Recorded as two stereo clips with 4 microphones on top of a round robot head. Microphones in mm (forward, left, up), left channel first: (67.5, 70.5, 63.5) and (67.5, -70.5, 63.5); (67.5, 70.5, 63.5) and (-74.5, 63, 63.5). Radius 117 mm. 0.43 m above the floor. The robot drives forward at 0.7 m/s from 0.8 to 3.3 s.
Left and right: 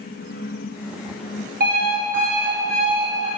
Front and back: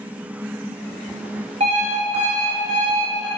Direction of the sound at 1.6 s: 120° right.